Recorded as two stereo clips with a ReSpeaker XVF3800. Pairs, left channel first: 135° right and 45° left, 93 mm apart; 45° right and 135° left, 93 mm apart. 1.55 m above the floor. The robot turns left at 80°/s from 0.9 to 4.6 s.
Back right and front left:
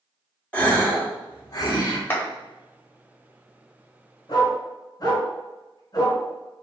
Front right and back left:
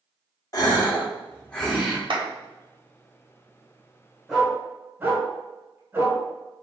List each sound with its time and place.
0.5 s a gasp: 70° right, 1.4 m; by 2.0 s 155° right, 1.4 m
2.1 s a clap: 160° left, 1.3 m; by 2.3 s 145° left, 1.3 m
4.3 s a dog barking: 135° right, 2.0 m; by 6.2 s 160° right, 2.0 m